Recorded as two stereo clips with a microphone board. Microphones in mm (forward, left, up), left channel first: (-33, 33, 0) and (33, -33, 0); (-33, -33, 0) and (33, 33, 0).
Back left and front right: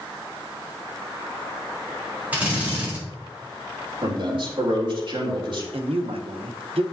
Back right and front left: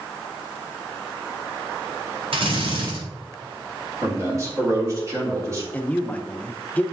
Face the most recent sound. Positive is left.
turn(degrees=-60)